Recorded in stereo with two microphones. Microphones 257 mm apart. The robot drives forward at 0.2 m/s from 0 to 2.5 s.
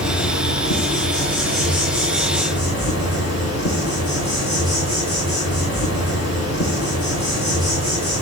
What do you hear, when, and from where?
0.0 s an insect: 60° left (ahead or behind), 8.5 m